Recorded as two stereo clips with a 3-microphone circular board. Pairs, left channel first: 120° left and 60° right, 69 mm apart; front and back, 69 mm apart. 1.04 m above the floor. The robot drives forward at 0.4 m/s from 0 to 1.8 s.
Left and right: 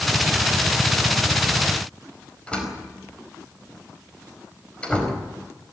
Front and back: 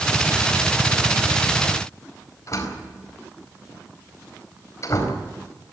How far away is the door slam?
About 4.5 m.